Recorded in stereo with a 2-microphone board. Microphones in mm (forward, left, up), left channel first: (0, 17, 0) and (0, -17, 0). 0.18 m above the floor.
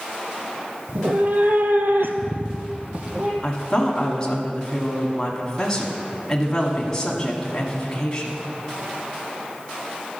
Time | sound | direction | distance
0.9 | a cat meowing | 45° right (ahead or behind) | 0.9 m
3.4 | a woman speaking | 15° left (ahead or behind) | 1.3 m